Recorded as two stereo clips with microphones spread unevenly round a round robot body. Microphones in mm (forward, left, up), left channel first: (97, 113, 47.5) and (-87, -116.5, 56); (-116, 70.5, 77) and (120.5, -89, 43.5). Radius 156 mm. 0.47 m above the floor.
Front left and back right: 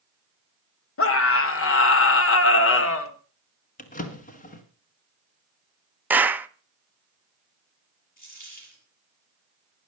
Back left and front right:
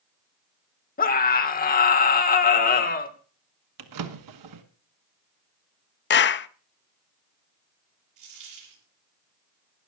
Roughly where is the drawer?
Ahead.